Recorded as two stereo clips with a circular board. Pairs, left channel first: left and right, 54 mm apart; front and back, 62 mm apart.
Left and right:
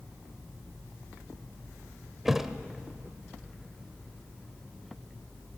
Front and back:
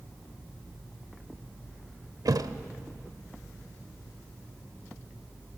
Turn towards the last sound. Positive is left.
turn(degrees=-175)